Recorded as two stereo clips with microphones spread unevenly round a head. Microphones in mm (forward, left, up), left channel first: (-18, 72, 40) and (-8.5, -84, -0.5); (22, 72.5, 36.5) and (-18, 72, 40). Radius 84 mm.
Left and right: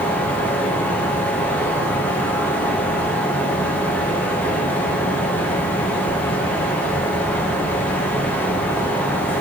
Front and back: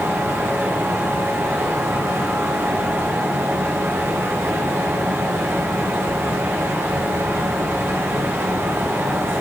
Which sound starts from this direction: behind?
A fan, at 0.0 s.